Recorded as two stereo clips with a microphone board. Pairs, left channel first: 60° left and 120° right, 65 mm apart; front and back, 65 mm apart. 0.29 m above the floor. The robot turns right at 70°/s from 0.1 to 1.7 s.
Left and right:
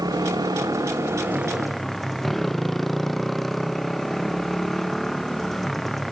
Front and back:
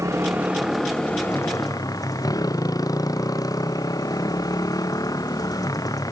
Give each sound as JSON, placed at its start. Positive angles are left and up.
{"t": 0.0, "sound": "a motorcycle", "azimuth_deg": -140}